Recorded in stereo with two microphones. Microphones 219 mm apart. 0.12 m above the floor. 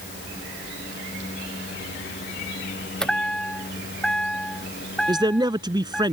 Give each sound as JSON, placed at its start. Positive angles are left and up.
{"t": 3.0, "sound": "a chime", "side_deg": 0}
{"t": 5.1, "sound": "a man speaking", "side_deg": -20}